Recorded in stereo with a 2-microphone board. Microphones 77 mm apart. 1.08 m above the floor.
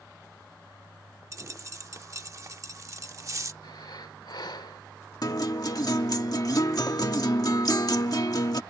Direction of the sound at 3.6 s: 70° left (ahead or behind).